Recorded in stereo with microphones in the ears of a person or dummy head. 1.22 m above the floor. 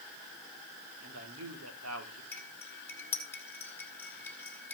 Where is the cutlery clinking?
10° left (ahead or behind), 2 m.